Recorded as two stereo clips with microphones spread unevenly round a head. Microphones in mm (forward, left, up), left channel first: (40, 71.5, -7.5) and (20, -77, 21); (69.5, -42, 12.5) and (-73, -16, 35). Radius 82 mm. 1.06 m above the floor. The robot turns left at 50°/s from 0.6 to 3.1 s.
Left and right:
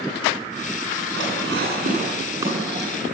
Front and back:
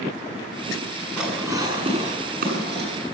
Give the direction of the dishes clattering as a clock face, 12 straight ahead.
3 o'clock.